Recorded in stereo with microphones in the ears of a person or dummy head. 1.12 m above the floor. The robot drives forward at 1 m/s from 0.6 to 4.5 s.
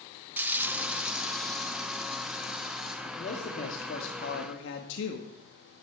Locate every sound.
0.4 s frying: 10° right (ahead or behind), 0.5 m; by 3.0 s centre (ahead or behind), 3 m
3.0 s a man speaking: 35° left (ahead or behind), 3 m; by 5.3 s 65° left (ahead or behind), 1.8 m